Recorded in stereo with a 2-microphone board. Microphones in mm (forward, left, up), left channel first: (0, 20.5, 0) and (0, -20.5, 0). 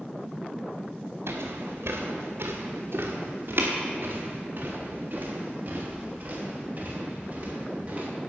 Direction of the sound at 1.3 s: 85° right.